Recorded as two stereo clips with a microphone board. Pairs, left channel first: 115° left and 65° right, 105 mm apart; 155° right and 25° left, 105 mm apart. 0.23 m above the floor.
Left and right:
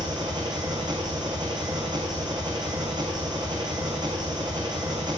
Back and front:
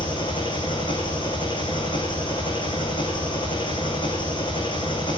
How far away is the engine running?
About 3.5 m.